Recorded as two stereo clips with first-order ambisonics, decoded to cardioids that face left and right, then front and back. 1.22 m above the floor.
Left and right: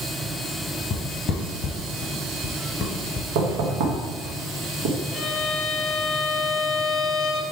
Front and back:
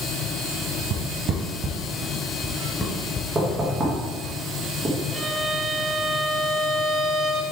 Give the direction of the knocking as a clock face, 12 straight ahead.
4 o'clock.